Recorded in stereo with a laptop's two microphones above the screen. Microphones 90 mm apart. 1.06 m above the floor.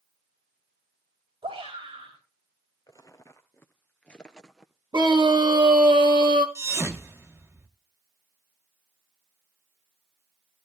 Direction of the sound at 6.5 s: 30° right (ahead or behind).